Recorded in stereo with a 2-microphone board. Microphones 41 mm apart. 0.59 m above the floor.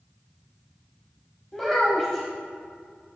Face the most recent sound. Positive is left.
turn(degrees=15)  # may be behind; listen again after turning